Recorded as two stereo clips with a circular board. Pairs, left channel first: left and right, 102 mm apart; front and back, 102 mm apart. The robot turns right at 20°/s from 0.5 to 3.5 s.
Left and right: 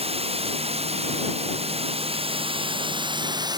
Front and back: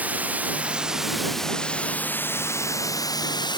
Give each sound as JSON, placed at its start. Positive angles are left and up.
{"t": 0.0, "sound": "running water", "azimuth_deg": -105}